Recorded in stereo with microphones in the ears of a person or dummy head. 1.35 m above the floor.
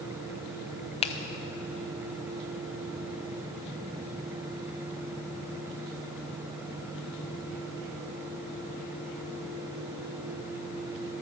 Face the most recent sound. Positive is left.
turn(degrees=35)  # may be behind; listen again after turning